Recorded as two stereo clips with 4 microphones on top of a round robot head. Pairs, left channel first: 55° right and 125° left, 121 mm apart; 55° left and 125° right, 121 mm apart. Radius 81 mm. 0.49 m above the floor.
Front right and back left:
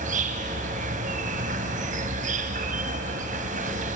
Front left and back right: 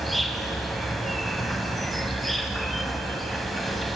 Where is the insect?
145° left, 1.6 m.